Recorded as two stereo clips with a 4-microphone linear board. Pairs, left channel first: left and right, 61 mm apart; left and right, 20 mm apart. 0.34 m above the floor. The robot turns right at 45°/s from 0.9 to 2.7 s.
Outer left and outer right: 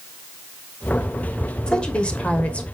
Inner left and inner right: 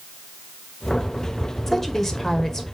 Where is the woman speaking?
15° left (ahead or behind), 1.2 m; by 2.6 s 20° left (ahead or behind), 1.2 m.